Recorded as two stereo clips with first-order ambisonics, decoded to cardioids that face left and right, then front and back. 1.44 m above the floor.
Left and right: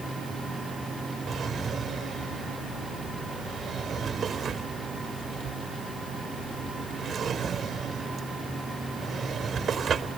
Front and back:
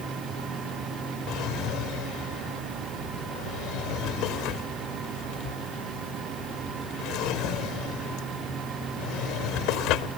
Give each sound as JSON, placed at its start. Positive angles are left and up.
{"t": 1.3, "sound": "a drawer", "azimuth_deg": -30}